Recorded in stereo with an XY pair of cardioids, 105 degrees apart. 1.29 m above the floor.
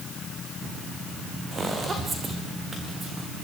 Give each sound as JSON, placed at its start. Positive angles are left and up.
{"t": 1.5, "sound": "footsteps", "azimuth_deg": -35, "distance_m": 6.0}